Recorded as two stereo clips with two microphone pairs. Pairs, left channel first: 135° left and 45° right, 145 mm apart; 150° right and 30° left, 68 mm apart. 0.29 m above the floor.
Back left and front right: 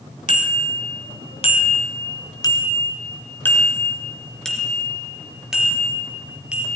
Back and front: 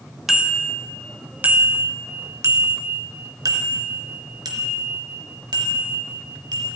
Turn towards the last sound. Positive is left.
turn(degrees=35)